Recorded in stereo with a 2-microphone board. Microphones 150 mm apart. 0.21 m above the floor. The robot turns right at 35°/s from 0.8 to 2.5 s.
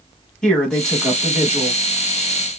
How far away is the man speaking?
About 1.4 m.